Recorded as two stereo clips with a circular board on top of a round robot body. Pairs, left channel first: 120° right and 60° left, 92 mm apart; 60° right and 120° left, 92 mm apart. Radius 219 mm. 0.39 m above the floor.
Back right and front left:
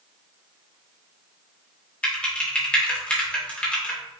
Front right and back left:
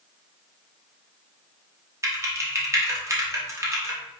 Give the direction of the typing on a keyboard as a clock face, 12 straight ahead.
6 o'clock.